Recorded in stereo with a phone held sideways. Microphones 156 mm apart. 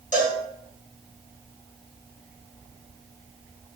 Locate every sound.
0.1 s a cowbell: 55° left (ahead or behind), 1.1 m